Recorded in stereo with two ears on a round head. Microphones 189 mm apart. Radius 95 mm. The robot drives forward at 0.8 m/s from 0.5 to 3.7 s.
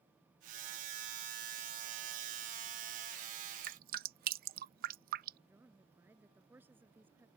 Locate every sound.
3.6 s dripping: 40° right (ahead or behind); by 5.4 s 45° right (ahead or behind)
5.5 s a woman speaking: 10° right (ahead or behind)